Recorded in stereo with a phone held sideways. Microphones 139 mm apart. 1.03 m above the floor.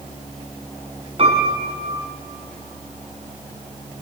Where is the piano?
45° right (ahead or behind), 3.5 m.